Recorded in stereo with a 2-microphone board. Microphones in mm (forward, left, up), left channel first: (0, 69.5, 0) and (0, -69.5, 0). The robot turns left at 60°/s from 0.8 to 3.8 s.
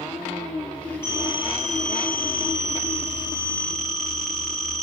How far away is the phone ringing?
About 7 m.